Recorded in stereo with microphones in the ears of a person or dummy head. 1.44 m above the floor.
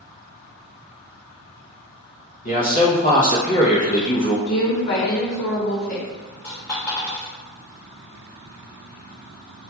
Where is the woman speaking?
50° left (ahead or behind), 1.0 m.